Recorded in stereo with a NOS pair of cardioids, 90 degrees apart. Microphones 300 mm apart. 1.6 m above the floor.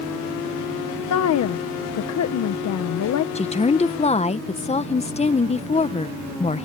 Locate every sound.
1.1 s a woman speaking: 60° left
3.4 s a woman speaking: 20° left